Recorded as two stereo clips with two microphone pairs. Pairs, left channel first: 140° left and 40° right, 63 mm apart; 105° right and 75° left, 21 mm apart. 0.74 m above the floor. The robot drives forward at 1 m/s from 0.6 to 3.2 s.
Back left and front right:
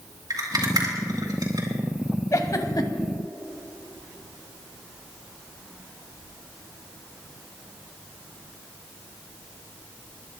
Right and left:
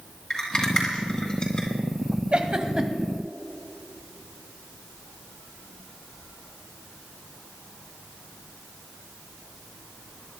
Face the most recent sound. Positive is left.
turn(degrees=145)